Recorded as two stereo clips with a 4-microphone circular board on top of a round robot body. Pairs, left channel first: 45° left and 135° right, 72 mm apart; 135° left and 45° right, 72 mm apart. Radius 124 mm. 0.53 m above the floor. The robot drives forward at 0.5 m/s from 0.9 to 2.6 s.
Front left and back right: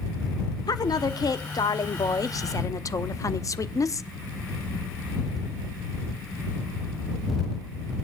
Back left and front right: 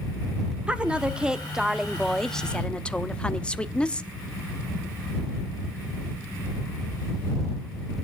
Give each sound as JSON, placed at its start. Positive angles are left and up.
{"t": 0.7, "sound": "a woman speaking", "azimuth_deg": 30, "distance_m": 1.5}